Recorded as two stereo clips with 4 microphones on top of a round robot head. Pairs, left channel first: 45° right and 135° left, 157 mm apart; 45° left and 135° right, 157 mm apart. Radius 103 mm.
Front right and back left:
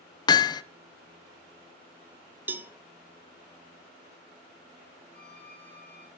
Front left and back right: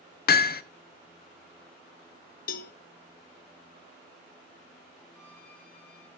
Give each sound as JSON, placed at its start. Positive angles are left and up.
{"t": 0.3, "sound": "hammering", "azimuth_deg": 20, "distance_m": 0.5}
{"t": 2.5, "sound": "a cowbell", "azimuth_deg": 55, "distance_m": 0.6}
{"t": 5.1, "sound": "a violin", "azimuth_deg": 35, "distance_m": 6.5}